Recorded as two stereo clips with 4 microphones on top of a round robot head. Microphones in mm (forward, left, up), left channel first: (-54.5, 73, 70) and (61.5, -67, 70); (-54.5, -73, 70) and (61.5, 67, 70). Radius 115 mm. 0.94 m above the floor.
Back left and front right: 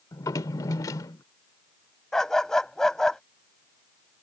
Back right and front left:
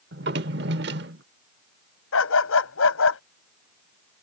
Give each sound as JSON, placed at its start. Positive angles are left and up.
{"t": 0.1, "sound": "a drawer", "azimuth_deg": 60}
{"t": 2.1, "sound": "a dog barking", "azimuth_deg": -145}